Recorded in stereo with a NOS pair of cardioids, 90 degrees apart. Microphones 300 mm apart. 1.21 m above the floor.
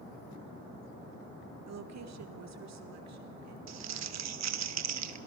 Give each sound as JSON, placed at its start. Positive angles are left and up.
{"t": 1.7, "sound": "a woman speaking", "azimuth_deg": -60, "distance_m": 2.0}
{"t": 3.7, "sound": "crumpling", "azimuth_deg": -60, "distance_m": 1.5}